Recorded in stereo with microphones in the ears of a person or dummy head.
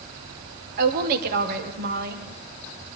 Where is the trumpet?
No trumpet in this recording.